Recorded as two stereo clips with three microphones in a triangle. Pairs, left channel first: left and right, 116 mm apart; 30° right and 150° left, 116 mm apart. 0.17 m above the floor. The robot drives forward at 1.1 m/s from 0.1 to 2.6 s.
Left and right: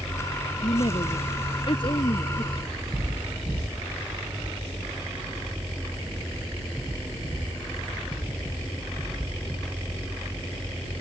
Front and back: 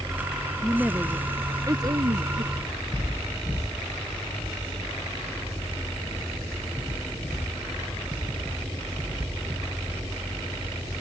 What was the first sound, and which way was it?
A woman speaking, 65° left.